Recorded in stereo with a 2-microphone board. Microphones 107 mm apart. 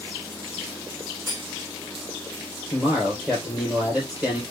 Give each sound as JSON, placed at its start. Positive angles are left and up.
{"t": 1.3, "sound": "cutlery clinking", "side_deg": -5, "distance_m": 4.5}
{"t": 2.7, "sound": "a man speaking", "side_deg": -10, "distance_m": 3.0}